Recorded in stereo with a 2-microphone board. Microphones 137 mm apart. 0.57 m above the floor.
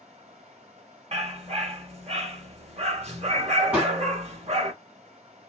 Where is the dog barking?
50° right (ahead or behind), 1.1 m.